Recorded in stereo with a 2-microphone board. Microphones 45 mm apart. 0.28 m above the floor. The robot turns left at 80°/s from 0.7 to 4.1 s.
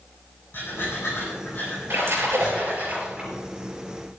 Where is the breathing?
60° left (ahead or behind), 8 m; by 2.9 s 55° right (ahead or behind), 8 m.